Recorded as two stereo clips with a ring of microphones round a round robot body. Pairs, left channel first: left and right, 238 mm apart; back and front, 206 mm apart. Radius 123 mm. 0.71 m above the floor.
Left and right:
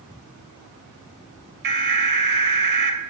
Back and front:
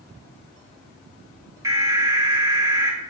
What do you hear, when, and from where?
1.6 s an alarm: 70° right, 2.5 m